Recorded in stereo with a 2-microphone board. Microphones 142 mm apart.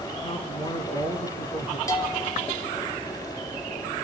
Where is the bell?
25° left (ahead or behind), 3 m.